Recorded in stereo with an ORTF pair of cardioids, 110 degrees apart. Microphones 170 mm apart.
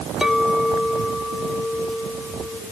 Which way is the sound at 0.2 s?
5° right.